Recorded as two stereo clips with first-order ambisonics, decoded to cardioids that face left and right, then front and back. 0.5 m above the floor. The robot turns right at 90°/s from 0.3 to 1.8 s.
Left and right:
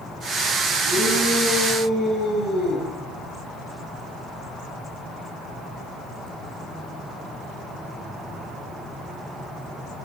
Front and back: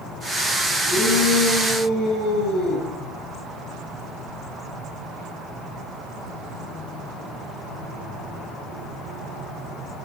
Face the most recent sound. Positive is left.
turn(degrees=25)